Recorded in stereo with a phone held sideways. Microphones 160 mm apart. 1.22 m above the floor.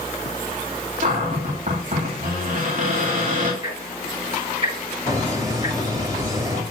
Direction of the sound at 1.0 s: 60° right (ahead or behind).